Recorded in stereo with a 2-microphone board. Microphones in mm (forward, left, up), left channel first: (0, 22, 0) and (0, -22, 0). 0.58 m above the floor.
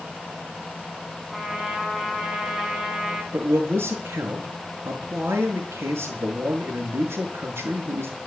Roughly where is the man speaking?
Right.